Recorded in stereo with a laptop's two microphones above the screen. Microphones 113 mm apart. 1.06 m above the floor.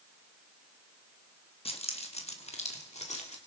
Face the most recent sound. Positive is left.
turn(degrees=80)